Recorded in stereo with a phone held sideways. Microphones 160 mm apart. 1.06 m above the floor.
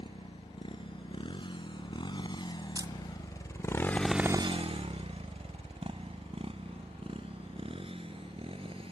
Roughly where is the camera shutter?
Right.